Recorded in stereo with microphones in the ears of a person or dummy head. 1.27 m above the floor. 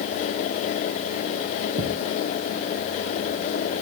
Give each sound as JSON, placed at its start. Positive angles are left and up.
{"t": 1.8, "sound": "a thud", "side_deg": -70}